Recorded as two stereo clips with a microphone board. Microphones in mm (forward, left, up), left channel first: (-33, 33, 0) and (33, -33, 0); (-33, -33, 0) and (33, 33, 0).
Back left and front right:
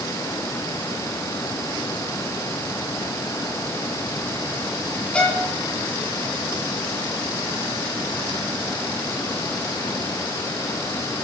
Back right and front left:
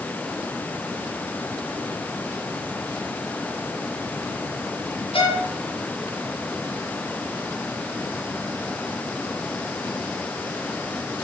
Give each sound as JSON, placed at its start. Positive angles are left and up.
{"t": 5.1, "sound": "a violin", "azimuth_deg": -145, "distance_m": 1.8}